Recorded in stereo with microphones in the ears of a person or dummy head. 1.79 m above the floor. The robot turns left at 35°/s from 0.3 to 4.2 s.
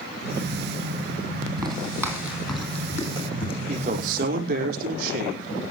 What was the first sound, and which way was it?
Footsteps, 25° right (ahead or behind).